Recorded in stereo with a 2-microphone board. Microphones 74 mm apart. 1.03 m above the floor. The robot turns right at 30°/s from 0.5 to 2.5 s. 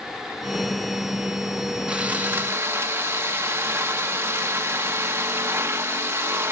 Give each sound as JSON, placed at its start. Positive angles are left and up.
{"t": 1.9, "sound": "sawing", "side_deg": -15, "distance_m": 1.0}